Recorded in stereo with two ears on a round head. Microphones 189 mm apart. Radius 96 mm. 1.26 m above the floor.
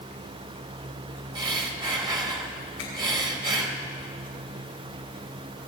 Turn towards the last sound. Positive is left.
turn(degrees=60)  # may be behind; listen again after turning